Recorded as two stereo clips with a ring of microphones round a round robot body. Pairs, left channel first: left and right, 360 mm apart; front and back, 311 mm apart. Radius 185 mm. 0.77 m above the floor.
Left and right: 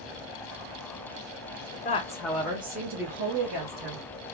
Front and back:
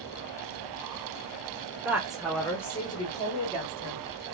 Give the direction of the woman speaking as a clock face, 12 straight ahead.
8 o'clock.